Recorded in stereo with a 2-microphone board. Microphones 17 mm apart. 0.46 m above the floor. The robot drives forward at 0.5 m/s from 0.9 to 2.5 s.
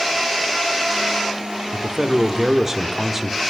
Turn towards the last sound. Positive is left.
turn(degrees=-25)  # may be behind; listen again after turning